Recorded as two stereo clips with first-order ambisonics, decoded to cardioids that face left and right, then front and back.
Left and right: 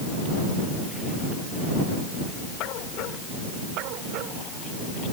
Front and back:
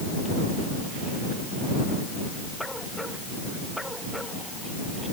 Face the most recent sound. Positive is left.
No sound to turn to.